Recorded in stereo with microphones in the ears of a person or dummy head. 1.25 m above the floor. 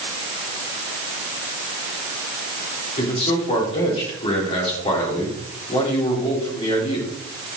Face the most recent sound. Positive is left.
turn(degrees=35)  # may be behind; listen again after turning